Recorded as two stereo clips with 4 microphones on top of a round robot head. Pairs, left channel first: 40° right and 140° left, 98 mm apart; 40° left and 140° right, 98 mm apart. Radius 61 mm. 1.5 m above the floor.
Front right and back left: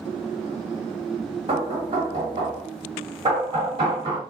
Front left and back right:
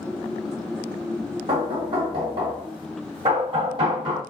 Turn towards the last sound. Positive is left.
turn(degrees=180)